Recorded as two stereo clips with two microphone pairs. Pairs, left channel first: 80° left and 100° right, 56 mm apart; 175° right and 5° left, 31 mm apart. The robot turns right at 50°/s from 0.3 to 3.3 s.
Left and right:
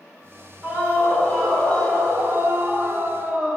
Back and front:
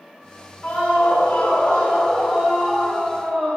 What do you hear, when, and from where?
0.6 s a scream: 160° right, 4 m; by 3.6 s 25° right, 4 m